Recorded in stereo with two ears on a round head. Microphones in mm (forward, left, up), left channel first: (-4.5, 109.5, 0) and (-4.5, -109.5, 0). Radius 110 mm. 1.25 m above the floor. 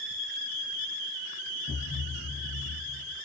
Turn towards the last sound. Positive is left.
turn(degrees=30)  # may be behind; listen again after turning